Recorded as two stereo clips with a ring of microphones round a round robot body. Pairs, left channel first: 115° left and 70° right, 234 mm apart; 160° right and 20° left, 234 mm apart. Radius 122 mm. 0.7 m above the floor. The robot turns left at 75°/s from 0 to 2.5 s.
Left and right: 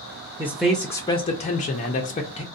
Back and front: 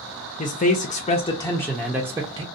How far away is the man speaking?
About 0.5 m.